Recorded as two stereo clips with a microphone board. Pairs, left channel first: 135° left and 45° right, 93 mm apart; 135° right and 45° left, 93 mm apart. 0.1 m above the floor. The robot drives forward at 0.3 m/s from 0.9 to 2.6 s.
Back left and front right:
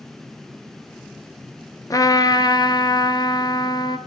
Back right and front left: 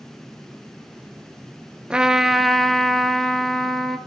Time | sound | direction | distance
1.9 | a trumpet | 120° left | 0.6 m